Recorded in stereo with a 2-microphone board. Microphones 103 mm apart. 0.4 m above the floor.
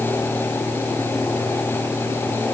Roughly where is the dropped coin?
I don't hear a dropped coin.